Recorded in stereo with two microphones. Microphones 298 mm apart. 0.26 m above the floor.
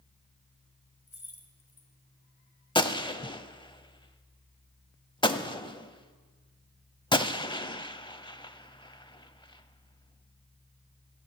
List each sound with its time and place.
1.1 s keys jangling: 50° left (ahead or behind), 1.9 m
2.8 s a gunshot: 15° left (ahead or behind), 0.5 m